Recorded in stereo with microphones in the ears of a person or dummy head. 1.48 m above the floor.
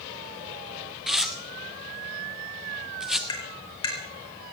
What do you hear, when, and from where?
1.1 s tearing paper: centre (ahead or behind), 0.8 m
3.3 s tapping: 25° left (ahead or behind), 3 m